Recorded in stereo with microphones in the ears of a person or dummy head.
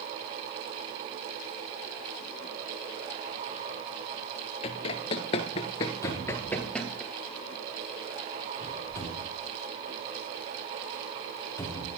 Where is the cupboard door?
15° left (ahead or behind), 3.5 m.